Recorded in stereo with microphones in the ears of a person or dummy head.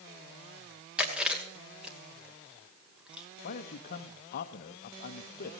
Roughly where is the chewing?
Centre.